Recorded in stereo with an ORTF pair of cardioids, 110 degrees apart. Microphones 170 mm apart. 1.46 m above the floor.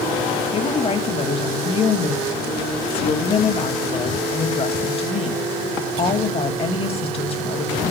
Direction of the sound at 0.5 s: 35° left.